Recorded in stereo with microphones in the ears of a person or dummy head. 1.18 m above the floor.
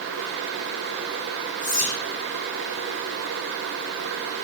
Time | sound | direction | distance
1.6 | whispering | 35° left (ahead or behind) | 0.8 m